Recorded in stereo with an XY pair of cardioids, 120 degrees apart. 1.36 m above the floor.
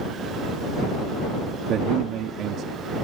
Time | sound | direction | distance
1.7 | a man speaking | 65° right | ?